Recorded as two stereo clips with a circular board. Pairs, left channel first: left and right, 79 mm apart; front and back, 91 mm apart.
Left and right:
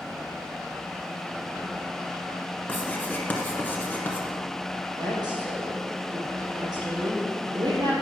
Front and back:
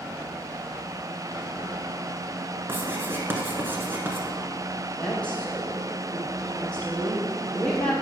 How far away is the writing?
About 1.3 m.